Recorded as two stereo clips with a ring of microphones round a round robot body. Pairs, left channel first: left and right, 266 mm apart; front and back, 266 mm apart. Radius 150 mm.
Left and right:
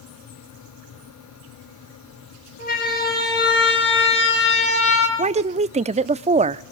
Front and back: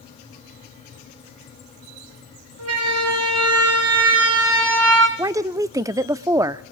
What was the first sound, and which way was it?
A siren, 155° left.